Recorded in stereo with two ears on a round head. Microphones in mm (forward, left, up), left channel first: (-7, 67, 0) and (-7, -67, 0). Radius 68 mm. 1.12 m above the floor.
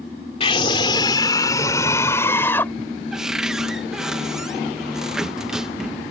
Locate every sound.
0.4 s a scream: 40° left (ahead or behind); by 2.7 s 15° left (ahead or behind)
3.1 s a cupboard door: 5° right (ahead or behind)